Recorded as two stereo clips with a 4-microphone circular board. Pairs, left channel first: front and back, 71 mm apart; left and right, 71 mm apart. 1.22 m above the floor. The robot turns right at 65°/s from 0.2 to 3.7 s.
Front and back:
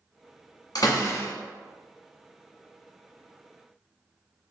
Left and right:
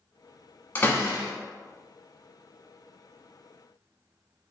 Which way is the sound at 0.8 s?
30° left.